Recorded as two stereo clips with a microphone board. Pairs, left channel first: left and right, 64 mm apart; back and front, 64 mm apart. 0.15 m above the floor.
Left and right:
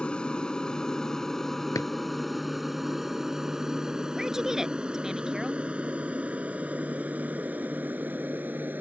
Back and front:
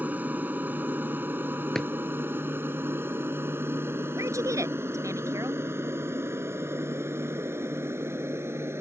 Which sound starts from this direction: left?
A drawer, at 1.8 s.